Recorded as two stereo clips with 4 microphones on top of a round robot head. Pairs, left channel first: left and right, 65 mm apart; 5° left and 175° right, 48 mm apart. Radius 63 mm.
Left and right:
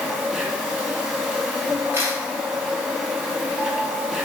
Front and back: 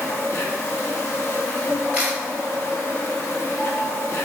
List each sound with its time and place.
0.0 s an insect: 15° right, 1.3 m
1.9 s a camera shutter: 105° right, 0.6 m